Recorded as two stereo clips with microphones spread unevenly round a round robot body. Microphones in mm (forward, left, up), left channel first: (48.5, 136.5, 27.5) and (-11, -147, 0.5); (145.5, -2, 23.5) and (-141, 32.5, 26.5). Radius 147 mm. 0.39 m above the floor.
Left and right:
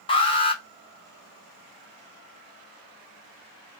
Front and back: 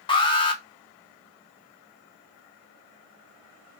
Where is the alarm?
25° left, 0.6 m.